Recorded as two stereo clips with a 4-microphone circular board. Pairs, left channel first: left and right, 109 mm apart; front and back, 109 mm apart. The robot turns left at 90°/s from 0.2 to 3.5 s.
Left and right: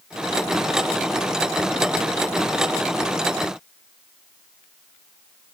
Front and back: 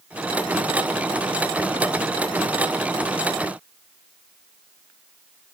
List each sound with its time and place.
Only background noise.